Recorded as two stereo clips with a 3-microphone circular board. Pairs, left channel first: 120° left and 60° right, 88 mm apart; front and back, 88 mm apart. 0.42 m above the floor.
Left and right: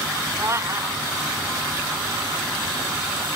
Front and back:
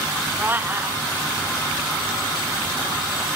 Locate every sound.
0.4 s a cat meowing: 115° right